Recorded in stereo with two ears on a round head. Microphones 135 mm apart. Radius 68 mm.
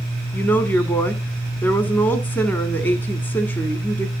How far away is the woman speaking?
About 1.4 m.